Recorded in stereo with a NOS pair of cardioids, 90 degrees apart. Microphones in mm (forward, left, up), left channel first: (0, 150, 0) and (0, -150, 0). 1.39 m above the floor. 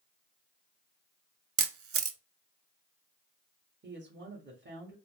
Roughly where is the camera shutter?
Ahead right.